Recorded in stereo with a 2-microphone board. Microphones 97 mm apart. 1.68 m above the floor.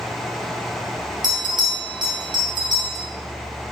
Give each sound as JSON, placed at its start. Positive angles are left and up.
{"t": 1.2, "sound": "a bell", "side_deg": -50, "distance_m": 1.7}